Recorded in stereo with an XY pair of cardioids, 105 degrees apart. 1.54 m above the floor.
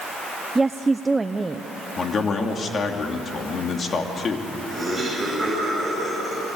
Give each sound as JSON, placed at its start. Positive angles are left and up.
{"t": 0.6, "sound": "a woman speaking", "azimuth_deg": -20, "distance_m": 0.8}
{"t": 2.0, "sound": "a man speaking", "azimuth_deg": 45, "distance_m": 3.0}
{"t": 4.7, "sound": "laughter", "azimuth_deg": 0, "distance_m": 8.5}